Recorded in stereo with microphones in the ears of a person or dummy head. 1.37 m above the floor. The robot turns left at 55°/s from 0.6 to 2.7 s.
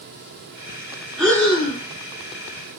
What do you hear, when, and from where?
1.2 s breathing: straight behind, 1.2 m; by 1.8 s 145° left, 1.2 m